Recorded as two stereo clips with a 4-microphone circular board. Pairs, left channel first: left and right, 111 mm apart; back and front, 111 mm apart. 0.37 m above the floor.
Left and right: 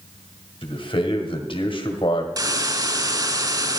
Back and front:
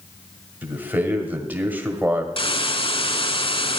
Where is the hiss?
145° right, 0.6 m.